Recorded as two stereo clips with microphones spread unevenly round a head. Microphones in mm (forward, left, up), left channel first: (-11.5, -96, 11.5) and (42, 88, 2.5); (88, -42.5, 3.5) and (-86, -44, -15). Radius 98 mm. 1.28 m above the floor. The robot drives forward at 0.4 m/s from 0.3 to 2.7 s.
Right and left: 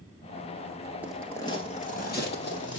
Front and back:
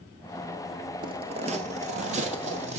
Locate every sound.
1.0 s footsteps: 150° left, 1.3 m; by 2.8 s 125° right, 3 m